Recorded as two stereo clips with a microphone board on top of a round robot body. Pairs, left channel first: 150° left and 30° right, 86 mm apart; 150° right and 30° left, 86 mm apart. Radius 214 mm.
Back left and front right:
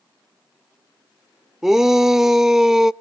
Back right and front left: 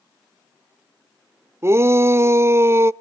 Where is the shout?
50° left, 0.7 m.